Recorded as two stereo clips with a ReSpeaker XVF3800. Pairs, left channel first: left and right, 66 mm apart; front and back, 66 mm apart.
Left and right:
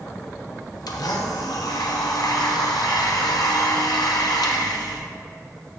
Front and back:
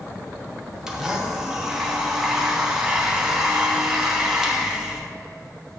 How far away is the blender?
About 0.9 m.